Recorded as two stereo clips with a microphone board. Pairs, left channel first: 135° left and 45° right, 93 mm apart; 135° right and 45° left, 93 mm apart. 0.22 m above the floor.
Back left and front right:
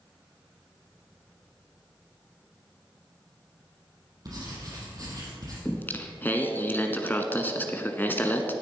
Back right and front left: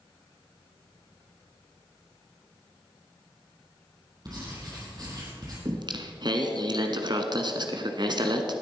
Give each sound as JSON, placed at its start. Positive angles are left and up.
{"t": 4.2, "sound": "writing", "azimuth_deg": 0, "distance_m": 5.0}
{"t": 5.7, "sound": "singing", "azimuth_deg": 70, "distance_m": 1.2}